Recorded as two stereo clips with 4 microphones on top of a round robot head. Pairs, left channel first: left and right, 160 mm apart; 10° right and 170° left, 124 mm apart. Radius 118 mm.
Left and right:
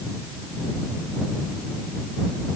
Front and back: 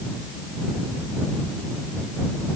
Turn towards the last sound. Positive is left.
No sound to turn to.